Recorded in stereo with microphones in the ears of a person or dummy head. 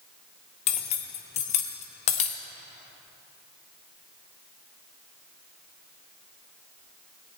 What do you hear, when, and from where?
0.7 s cutlery clinking: 35° left (ahead or behind), 0.9 m